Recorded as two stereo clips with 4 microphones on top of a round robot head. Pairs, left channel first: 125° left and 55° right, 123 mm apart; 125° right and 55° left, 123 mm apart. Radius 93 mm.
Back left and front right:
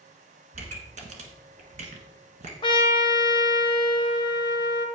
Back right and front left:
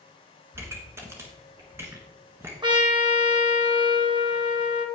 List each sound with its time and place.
0.5 s a pop: 20° right, 1.3 m
2.6 s a trumpet: 90° left, 1.3 m